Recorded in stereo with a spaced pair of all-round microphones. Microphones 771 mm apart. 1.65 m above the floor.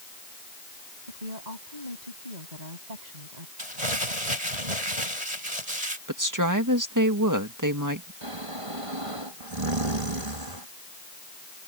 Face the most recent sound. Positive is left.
turn(degrees=-45)  # may be behind; listen again after turning